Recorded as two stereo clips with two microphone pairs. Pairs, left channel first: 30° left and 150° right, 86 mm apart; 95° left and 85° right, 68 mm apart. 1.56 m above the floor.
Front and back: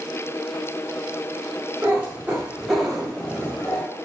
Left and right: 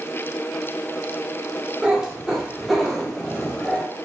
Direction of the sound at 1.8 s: 135° right.